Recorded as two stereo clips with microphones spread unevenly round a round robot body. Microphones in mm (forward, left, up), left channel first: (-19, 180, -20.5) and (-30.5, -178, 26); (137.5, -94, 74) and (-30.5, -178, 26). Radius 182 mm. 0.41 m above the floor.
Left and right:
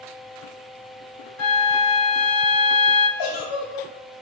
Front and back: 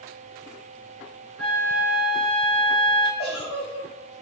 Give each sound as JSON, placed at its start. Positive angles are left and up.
{"t": 1.4, "sound": "a flute", "azimuth_deg": 80, "distance_m": 0.9}
{"t": 3.2, "sound": "a giggle", "azimuth_deg": 70, "distance_m": 1.5}